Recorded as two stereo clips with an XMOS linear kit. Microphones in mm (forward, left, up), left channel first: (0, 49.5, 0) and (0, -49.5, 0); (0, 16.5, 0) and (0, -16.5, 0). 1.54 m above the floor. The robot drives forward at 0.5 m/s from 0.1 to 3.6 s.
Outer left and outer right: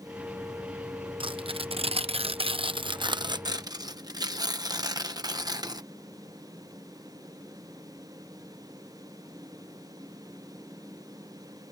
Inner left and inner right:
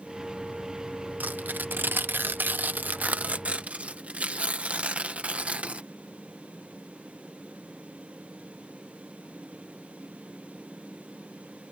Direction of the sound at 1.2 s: 60° right (ahead or behind).